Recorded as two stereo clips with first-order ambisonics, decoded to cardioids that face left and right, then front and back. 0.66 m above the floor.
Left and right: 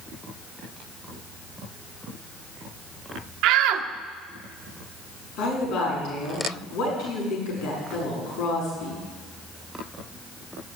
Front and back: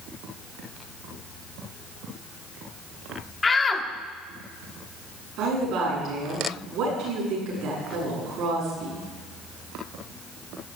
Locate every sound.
3.4 s a shout: 75° right, 1.2 m
5.4 s a woman speaking: 130° left, 8 m